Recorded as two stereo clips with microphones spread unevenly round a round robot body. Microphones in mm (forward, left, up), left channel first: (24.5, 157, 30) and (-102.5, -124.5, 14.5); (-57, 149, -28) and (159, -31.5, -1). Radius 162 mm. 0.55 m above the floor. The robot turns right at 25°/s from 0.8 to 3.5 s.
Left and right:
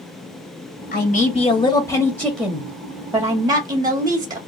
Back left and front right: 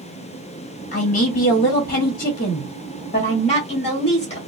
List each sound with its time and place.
0.9 s a man speaking: 115° left, 1.0 m; by 4.4 s straight behind, 1.0 m